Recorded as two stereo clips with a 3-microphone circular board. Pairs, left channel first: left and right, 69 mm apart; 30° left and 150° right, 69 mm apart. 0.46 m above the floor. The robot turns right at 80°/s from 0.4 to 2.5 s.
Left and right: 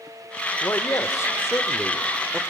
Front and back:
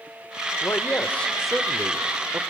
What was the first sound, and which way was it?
A man speaking, 50° left.